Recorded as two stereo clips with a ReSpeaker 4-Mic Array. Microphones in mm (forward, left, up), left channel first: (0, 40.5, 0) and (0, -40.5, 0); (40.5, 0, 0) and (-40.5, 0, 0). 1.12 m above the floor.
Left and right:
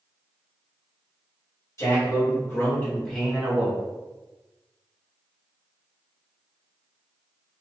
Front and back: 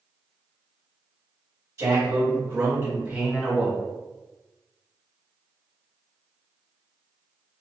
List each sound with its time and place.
1.8 s a man speaking: 135° left, 1.4 m; by 3.8 s 75° right, 0.7 m